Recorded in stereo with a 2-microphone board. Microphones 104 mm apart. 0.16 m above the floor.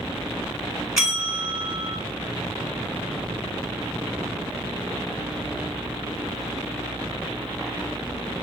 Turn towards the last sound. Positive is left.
turn(degrees=-5)  # may be behind; listen again after turning